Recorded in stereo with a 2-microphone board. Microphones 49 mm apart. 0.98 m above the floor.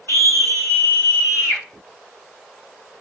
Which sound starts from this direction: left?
A scream, at 0.1 s.